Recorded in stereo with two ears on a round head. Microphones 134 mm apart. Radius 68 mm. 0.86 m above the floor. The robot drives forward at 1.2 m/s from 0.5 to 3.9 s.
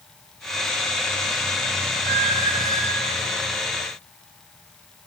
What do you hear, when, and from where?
2.0 s a squeak: 70° right (ahead or behind), 4 m; by 3.2 s 55° right (ahead or behind), 4.5 m